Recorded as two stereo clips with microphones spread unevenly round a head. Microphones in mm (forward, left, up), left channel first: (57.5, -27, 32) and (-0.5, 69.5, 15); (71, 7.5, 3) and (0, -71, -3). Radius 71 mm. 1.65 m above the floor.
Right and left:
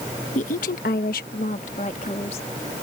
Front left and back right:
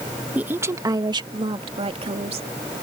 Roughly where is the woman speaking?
Ahead right.